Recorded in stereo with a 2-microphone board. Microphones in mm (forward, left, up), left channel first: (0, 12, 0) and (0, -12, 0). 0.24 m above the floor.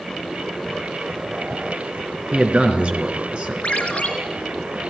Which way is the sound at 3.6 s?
55° left (ahead or behind).